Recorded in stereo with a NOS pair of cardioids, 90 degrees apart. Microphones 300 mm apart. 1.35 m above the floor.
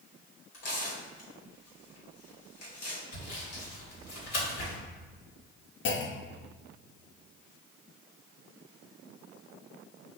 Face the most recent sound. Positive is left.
turn(degrees=40)